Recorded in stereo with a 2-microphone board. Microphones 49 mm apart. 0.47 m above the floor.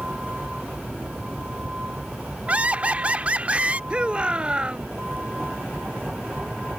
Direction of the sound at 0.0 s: 25° right (ahead or behind).